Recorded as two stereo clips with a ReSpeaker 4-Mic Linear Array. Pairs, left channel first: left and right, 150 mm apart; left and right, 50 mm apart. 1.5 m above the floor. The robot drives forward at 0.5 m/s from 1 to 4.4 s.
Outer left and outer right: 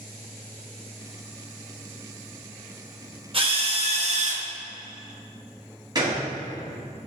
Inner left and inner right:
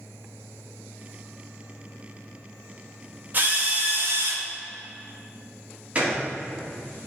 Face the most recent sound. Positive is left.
turn(degrees=-30)  # may be behind; listen again after turning